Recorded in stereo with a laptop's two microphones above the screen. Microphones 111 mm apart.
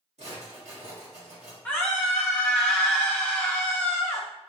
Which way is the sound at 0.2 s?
75° right (ahead or behind).